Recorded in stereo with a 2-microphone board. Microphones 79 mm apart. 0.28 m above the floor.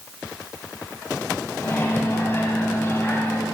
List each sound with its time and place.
1.6 s a microwave: 30° left (ahead or behind), 1.7 m